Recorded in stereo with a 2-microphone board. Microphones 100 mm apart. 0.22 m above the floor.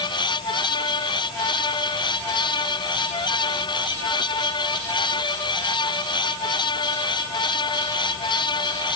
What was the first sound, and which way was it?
Only background noise.